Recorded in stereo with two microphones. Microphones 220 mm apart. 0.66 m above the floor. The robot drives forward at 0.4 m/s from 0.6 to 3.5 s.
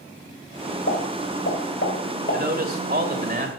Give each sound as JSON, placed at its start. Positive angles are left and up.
{"t": 0.9, "sound": "a pop", "side_deg": 70, "distance_m": 3.0}
{"t": 2.3, "sound": "a man speaking", "side_deg": -45, "distance_m": 2.0}